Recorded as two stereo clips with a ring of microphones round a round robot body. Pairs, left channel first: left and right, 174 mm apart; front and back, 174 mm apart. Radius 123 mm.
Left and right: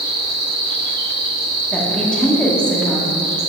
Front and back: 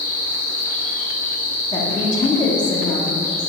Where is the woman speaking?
15° left, 1.2 m.